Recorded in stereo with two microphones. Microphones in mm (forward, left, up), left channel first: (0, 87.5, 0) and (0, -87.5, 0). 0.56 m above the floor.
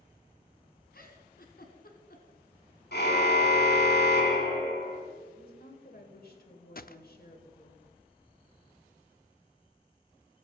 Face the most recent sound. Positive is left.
turn(degrees=60)  # may be behind; listen again after turning